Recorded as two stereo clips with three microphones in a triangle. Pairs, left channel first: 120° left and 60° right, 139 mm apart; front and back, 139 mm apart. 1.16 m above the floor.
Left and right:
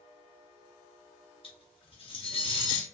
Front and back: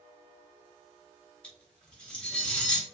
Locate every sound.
1.4 s cutlery clinking: 85° left, 0.8 m